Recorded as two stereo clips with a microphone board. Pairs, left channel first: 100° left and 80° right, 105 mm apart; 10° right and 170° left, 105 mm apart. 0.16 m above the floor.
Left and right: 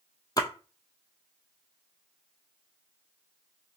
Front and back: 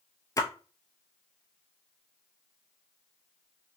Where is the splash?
45° left, 0.6 m.